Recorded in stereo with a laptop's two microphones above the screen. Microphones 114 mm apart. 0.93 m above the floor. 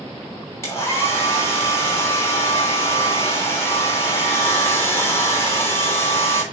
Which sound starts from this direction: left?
A hair dryer, at 0.6 s.